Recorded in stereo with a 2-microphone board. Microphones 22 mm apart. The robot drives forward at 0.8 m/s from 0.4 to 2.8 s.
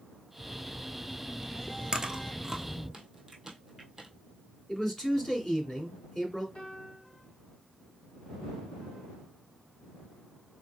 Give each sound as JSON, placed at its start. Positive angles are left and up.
{"t": 0.4, "sound": "a phone buzzing", "side_deg": 15, "distance_m": 2.5}
{"t": 1.9, "sound": "chewing", "side_deg": -35, "distance_m": 0.7}
{"t": 4.7, "sound": "a man speaking", "side_deg": 25, "distance_m": 1.9}
{"t": 6.5, "sound": "a piano", "side_deg": 60, "distance_m": 2.5}